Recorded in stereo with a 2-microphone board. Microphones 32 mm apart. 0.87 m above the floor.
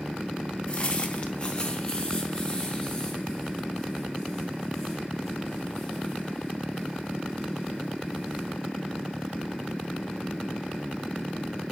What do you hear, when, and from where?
0.7 s footsteps: 30° left (ahead or behind), 0.9 m; by 8.5 s 10° left (ahead or behind), 6.5 m